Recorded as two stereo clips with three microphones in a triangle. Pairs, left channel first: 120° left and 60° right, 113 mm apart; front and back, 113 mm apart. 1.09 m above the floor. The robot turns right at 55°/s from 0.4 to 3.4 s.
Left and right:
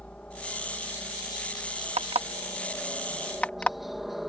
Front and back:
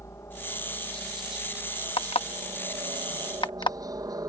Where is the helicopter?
45° left; by 4.3 s 150° right.